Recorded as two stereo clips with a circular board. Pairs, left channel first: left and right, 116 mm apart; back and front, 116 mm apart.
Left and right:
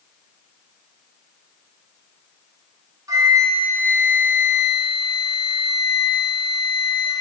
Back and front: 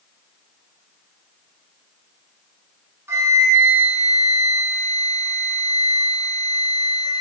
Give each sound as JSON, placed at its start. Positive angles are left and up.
{"t": 3.1, "sound": "a flute", "azimuth_deg": -50, "distance_m": 0.6}